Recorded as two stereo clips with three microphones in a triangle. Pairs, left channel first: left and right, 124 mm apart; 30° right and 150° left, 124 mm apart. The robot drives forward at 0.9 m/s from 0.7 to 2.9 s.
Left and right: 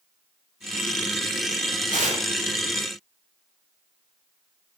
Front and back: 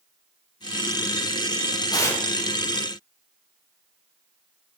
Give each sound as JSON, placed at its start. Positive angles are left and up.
{"t": 1.9, "sound": "tearing paper", "azimuth_deg": -85, "distance_m": 0.6}